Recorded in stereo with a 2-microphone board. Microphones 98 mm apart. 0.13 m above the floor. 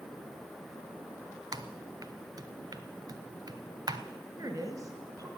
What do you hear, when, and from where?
1.5 s typing on a keyboard: 45° right (ahead or behind), 0.7 m
4.4 s a woman speaking: 35° right (ahead or behind), 1.8 m